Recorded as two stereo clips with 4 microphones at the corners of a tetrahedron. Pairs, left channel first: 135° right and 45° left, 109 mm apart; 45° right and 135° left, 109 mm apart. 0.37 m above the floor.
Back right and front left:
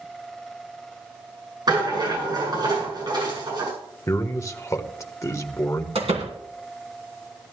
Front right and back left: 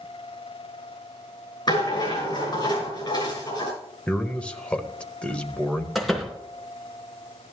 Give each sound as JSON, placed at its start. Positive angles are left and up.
{"t": 1.7, "sound": "a rattle", "azimuth_deg": 0, "distance_m": 6.5}
{"t": 4.1, "sound": "a man speaking", "azimuth_deg": -115, "distance_m": 1.2}
{"t": 6.0, "sound": "a door slam", "azimuth_deg": 45, "distance_m": 2.5}